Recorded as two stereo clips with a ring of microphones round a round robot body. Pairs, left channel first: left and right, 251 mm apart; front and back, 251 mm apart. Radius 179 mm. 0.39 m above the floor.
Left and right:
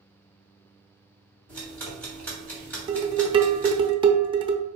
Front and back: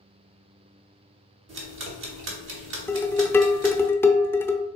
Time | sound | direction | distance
1.5 | ticking | 170° left | 1.2 m
2.9 | dishes clattering | 65° right | 0.6 m